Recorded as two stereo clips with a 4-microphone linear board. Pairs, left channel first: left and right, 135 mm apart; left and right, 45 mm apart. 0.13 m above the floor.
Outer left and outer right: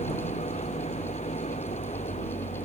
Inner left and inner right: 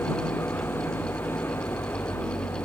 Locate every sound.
0.0 s an engine running: 60° left (ahead or behind)